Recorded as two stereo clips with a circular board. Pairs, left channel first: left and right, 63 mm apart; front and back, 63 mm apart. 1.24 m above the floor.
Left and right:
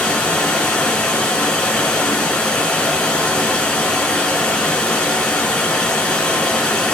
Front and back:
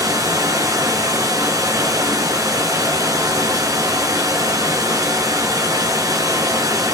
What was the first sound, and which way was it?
Running water, 160° left.